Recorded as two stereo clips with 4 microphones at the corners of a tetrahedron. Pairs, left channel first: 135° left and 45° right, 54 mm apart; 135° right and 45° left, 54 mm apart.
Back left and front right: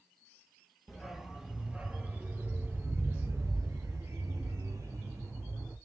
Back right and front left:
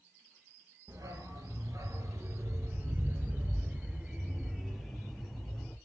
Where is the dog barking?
40° left, 3 m; by 5.8 s 55° right, 3.5 m.